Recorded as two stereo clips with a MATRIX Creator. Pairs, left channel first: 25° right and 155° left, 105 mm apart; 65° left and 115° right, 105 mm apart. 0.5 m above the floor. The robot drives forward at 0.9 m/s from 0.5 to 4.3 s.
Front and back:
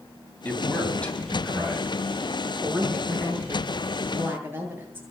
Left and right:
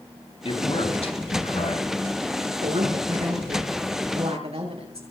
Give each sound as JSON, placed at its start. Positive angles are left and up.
{"t": 0.5, "sound": "a man speaking", "azimuth_deg": 50, "distance_m": 4.0}
{"t": 2.6, "sound": "a woman speaking", "azimuth_deg": -125, "distance_m": 7.0}